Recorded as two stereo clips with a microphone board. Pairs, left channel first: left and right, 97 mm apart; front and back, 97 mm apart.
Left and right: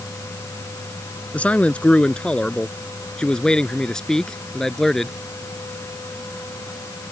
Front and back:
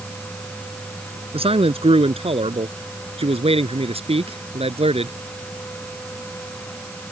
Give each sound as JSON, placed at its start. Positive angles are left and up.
{"t": 1.3, "sound": "a man speaking", "azimuth_deg": 165}